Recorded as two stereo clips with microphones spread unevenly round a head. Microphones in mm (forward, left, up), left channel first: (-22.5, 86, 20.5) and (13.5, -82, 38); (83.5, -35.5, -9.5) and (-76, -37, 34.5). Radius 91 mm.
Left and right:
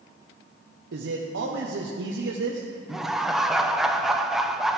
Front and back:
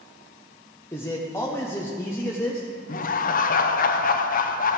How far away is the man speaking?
About 0.9 m.